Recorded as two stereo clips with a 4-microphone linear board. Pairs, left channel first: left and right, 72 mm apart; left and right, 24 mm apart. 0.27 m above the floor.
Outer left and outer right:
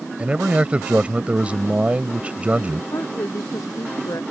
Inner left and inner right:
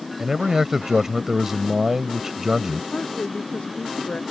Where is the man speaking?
20° right (ahead or behind).